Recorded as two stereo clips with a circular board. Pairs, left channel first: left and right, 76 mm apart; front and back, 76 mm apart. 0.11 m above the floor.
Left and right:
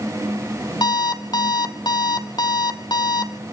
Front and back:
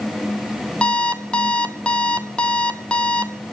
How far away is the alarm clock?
About 1.6 m.